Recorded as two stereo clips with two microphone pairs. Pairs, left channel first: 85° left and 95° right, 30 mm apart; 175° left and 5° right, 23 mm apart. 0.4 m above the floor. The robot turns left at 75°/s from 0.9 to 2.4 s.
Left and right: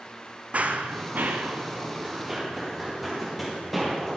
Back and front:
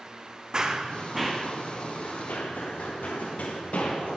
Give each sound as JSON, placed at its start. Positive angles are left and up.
{"t": 0.5, "sound": "running footsteps", "azimuth_deg": -65, "distance_m": 1.2}